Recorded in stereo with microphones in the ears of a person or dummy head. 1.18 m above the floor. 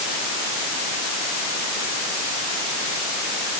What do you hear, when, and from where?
Only background noise.